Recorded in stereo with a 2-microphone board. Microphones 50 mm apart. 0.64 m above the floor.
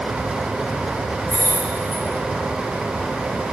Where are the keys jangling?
75° left (ahead or behind), 0.6 m.